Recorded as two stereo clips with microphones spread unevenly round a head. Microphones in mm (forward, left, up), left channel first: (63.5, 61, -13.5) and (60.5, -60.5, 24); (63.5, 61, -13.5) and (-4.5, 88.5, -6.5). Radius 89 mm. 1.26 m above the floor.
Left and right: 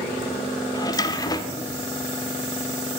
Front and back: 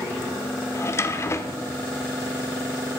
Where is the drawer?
20° left, 1.1 m.